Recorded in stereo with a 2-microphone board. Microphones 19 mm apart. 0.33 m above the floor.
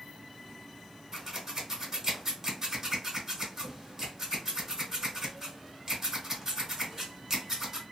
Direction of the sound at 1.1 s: 20° right (ahead or behind).